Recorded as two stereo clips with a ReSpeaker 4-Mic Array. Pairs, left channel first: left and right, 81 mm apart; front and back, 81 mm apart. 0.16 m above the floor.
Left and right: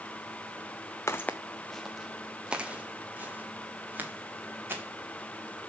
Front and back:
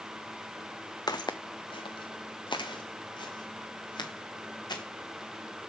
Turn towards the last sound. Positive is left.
turn(degrees=-25)